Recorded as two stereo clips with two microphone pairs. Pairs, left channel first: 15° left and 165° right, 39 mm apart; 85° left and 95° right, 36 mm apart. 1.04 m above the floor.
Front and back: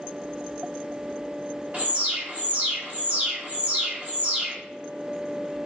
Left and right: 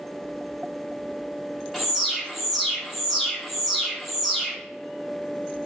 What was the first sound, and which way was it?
An alarm, straight behind.